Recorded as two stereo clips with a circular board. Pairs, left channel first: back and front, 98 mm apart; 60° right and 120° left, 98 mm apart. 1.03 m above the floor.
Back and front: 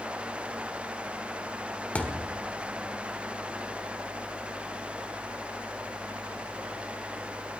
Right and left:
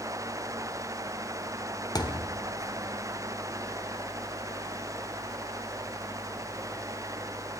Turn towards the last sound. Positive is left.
turn(degrees=-105)